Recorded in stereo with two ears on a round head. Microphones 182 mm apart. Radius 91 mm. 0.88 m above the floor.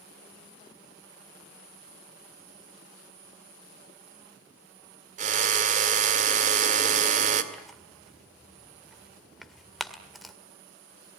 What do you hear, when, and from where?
5.2 s a drill: 40° right (ahead or behind), 2.0 m
7.5 s tearing paper: centre (ahead or behind), 1.9 m